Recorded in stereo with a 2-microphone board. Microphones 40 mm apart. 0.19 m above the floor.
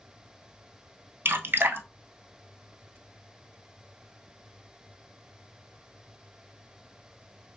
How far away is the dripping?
About 0.7 m.